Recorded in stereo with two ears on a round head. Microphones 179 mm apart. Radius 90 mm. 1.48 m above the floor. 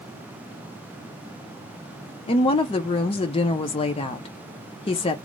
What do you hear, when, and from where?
2.3 s a woman speaking: 25° left (ahead or behind), 0.5 m